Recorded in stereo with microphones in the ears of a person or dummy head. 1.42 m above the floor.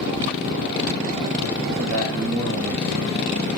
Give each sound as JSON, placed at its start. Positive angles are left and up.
{"t": 1.8, "sound": "a man speaking", "side_deg": -85, "distance_m": 3.5}